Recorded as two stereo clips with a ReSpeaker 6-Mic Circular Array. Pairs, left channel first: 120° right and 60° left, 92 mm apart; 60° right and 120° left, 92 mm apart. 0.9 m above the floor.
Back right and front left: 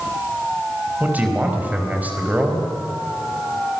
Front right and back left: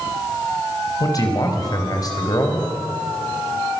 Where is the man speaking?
15° right, 4 m.